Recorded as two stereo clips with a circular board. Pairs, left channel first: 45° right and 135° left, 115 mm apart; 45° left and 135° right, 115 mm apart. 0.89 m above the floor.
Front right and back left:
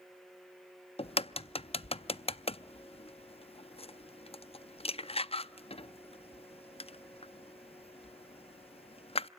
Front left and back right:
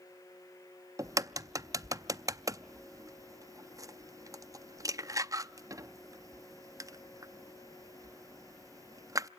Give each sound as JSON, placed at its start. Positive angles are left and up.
{"t": 1.0, "sound": "a crack", "azimuth_deg": -75, "distance_m": 0.5}